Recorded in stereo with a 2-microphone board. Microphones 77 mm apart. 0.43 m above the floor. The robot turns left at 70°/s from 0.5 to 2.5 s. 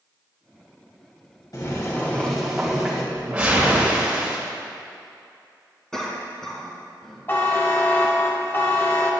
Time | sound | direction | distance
1.5 | boiling | 60° left | 2.0 m
3.1 | a whoosh | 15° right (ahead or behind) | 2 m
5.9 | a cough | 5° left (ahead or behind) | 3.5 m
7.3 | a buzzer | 30° left (ahead or behind) | 1.3 m